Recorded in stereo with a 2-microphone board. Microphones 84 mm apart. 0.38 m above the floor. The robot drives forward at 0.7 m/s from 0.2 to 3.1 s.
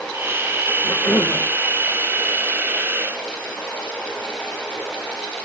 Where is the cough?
30° left (ahead or behind), 1.1 m; by 1.4 s 25° left (ahead or behind), 1.2 m.